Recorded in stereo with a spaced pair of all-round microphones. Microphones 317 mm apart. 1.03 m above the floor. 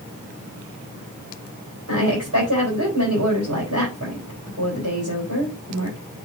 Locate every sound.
1.9 s a woman speaking: 55° right (ahead or behind), 3.5 m